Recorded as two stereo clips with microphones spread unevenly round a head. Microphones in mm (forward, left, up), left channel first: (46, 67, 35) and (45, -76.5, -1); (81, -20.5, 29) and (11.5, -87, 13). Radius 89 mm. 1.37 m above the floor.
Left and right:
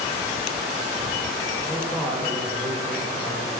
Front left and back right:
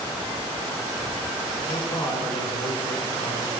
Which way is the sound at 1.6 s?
5° left.